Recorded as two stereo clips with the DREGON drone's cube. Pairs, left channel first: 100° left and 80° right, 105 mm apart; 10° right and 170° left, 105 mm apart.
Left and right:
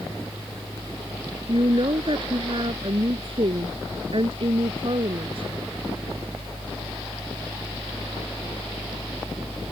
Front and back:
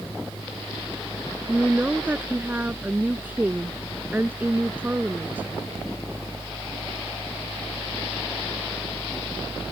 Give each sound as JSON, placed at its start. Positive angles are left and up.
{"t": 1.5, "sound": "a woman speaking", "azimuth_deg": -115}